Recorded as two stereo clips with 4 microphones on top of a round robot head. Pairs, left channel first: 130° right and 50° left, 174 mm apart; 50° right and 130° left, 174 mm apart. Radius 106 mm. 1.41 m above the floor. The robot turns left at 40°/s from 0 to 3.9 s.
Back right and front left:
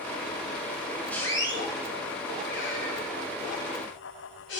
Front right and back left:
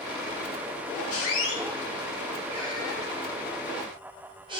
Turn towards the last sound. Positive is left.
turn(degrees=-160)